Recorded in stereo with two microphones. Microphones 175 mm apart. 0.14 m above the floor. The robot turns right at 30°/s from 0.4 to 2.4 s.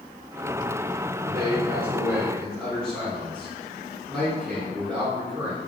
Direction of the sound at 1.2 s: 35° right.